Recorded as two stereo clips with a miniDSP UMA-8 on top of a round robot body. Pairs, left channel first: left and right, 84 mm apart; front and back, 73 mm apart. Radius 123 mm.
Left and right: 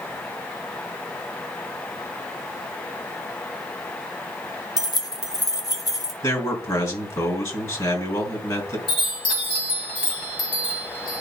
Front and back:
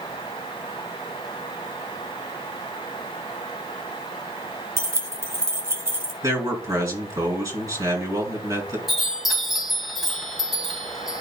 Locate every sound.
4.8 s keys jangling: 130° left, 1.4 m
6.2 s a man speaking: 135° left, 3.5 m
8.9 s a chime: 95° left, 3.5 m